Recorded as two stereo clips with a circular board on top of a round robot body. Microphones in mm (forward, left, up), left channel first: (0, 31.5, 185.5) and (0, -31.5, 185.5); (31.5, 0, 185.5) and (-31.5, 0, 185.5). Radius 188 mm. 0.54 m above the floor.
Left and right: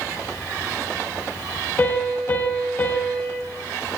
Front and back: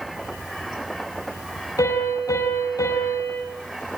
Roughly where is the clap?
No clap in this recording.